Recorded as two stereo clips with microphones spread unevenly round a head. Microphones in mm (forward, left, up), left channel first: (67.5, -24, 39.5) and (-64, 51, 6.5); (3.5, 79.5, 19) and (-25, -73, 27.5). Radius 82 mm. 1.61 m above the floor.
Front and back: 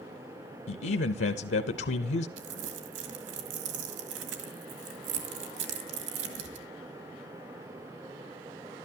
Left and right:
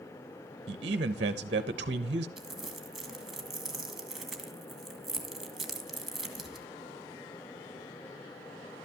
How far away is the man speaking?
About 0.6 m.